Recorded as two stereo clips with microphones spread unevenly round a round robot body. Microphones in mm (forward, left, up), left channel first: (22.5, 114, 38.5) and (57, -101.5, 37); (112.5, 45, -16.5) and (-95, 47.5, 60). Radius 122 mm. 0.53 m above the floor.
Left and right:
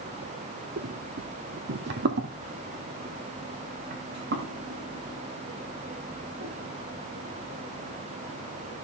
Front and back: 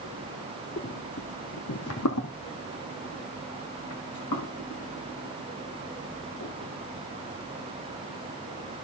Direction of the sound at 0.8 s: 70° right.